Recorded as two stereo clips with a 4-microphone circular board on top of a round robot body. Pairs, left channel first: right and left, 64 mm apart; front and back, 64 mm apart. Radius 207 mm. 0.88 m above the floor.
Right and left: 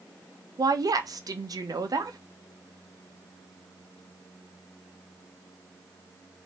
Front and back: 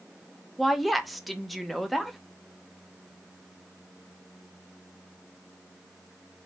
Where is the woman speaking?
90° left, 1.2 m.